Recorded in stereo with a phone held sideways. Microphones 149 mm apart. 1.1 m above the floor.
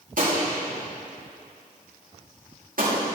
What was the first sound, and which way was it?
A gunshot, 65° right (ahead or behind).